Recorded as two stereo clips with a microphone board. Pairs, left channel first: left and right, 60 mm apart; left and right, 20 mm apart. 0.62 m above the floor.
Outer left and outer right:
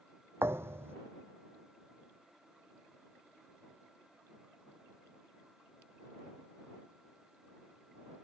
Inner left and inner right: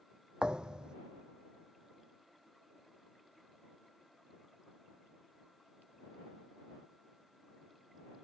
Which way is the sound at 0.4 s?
45° right (ahead or behind).